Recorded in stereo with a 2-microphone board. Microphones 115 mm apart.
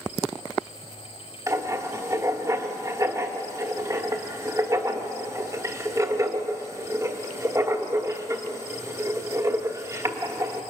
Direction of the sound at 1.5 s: 30° right (ahead or behind).